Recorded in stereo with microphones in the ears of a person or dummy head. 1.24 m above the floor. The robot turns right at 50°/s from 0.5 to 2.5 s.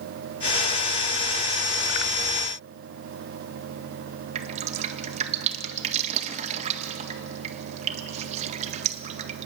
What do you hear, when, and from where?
4.3 s dripping: 45° right (ahead or behind), 1.7 m